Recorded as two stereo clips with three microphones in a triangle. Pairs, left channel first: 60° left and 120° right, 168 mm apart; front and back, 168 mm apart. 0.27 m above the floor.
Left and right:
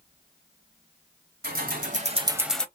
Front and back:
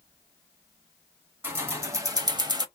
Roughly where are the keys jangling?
Right.